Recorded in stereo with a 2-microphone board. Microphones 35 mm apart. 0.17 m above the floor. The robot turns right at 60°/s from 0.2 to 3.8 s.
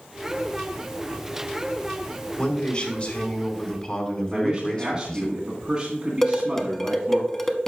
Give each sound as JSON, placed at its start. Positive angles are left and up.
{"t": 2.4, "sound": "a man speaking", "azimuth_deg": 40, "distance_m": 2.0}
{"t": 4.3, "sound": "a man speaking", "side_deg": -20, "distance_m": 1.8}
{"t": 6.2, "sound": "dishes clattering", "side_deg": 15, "distance_m": 0.8}